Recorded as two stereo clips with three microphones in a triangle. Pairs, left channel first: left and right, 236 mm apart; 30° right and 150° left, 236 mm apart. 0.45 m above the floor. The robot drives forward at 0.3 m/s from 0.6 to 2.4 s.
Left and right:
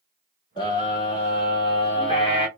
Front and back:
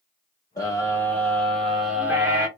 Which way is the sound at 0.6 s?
35° left.